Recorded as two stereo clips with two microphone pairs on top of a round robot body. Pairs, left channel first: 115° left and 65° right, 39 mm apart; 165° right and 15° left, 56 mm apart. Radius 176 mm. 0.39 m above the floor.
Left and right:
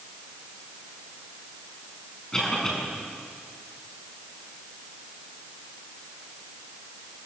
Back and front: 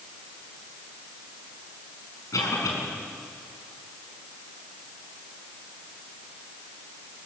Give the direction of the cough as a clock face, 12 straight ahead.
6 o'clock.